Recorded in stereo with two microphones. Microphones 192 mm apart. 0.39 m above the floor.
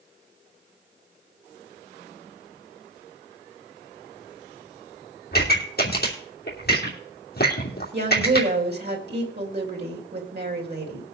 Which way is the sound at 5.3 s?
55° left (ahead or behind).